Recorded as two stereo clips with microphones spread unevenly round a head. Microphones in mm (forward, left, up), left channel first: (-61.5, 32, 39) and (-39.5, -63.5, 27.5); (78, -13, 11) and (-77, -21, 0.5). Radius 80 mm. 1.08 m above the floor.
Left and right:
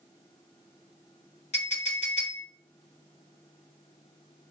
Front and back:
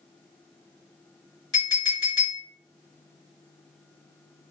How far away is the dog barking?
I don't hear a dog barking.